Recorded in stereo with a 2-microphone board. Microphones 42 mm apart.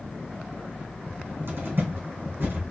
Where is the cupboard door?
60° right (ahead or behind), 3.5 m.